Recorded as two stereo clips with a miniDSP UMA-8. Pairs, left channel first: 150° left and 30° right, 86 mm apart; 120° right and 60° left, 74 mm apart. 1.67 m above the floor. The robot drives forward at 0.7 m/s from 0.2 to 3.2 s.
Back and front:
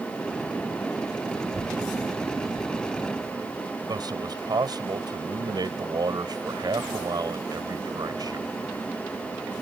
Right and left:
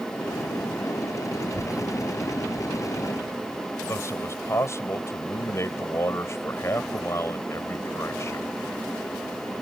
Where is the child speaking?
80° right; by 3.8 s 85° right.